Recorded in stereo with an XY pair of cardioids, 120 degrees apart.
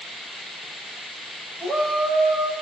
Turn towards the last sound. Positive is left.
turn(degrees=-35)